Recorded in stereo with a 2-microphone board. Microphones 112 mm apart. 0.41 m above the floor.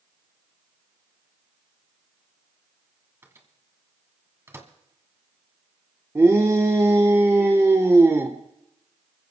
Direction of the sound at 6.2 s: 25° right (ahead or behind).